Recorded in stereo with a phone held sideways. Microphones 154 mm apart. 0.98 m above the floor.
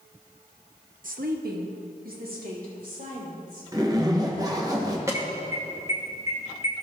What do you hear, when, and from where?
1.0 s a woman speaking: 60° right (ahead or behind), 0.8 m; by 4.7 s 55° right (ahead or behind), 4.5 m
3.7 s a zipper: 25° right (ahead or behind), 1.0 m
5.1 s an alarm: 20° right (ahead or behind), 1.3 m